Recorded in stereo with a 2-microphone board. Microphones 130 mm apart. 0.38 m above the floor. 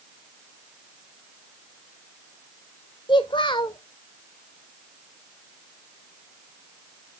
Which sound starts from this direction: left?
A child speaking, at 3.1 s.